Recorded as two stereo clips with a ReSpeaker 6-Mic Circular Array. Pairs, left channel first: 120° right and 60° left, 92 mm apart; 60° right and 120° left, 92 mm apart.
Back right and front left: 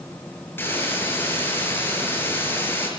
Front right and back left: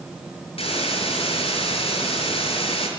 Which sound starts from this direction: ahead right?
A hiss, at 0.6 s.